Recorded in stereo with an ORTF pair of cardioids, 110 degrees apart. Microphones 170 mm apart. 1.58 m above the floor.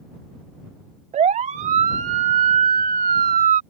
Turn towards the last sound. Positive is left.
turn(degrees=-60)